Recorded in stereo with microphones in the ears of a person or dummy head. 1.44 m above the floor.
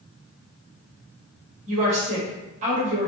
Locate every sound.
1.7 s a woman speaking: 40° right (ahead or behind), 0.9 m